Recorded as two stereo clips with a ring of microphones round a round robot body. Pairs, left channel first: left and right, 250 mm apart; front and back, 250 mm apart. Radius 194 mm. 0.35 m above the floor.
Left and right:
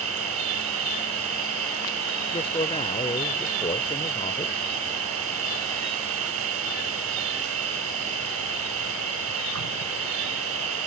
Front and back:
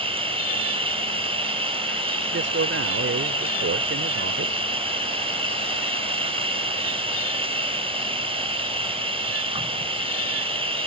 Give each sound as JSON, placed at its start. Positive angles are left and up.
{"t": 0.0, "sound": "an insect", "azimuth_deg": -115}
{"t": 2.3, "sound": "a man speaking", "azimuth_deg": 155}